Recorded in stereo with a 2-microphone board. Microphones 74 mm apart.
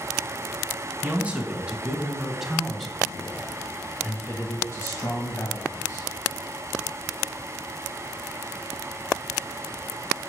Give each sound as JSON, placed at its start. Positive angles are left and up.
{"t": 1.0, "sound": "a man speaking", "side_deg": -20, "distance_m": 3.0}